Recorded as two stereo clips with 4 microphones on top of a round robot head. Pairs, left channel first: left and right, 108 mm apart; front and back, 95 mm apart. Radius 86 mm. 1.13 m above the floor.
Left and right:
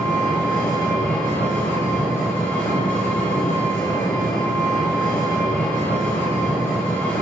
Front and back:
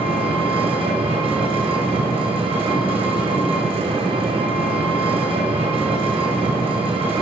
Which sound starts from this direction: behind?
An engine running, at 0.0 s.